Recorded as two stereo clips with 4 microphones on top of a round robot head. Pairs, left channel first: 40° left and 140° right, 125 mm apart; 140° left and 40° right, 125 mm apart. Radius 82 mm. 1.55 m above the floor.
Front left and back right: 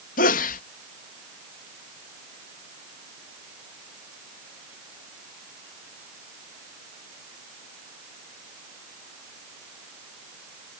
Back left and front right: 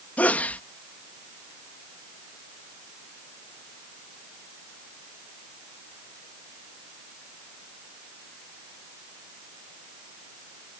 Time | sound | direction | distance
0.2 | a sneeze | 60° left | ?